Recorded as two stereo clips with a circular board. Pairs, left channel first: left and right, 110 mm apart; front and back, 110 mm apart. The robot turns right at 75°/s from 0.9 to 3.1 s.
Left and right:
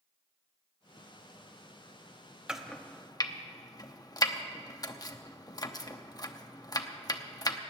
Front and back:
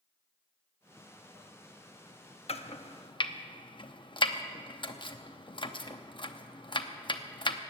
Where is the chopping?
5° right, 0.8 m; by 7.6 s 40° left, 0.8 m.